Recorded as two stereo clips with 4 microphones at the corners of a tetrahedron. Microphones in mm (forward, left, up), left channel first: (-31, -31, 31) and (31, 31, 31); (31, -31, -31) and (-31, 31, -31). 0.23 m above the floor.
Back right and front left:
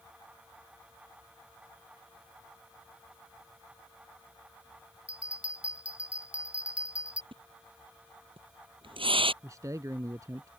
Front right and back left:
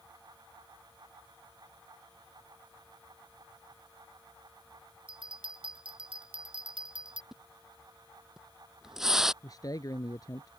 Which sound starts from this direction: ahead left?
A splash, at 7.3 s.